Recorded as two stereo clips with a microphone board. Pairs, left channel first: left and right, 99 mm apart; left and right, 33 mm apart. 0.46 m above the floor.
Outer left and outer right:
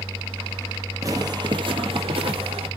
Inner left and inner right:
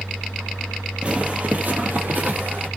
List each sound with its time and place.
1.0 s footsteps: 35° right (ahead or behind), 0.7 m; by 2.7 s 70° right (ahead or behind), 1.2 m